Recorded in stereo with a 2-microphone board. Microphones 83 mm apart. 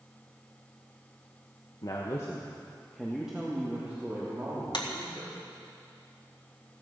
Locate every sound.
1.8 s a woman speaking: 55° left (ahead or behind), 1.3 m; by 5.3 s 30° right (ahead or behind), 4 m
4.7 s a clap: 60° left (ahead or behind), 1.7 m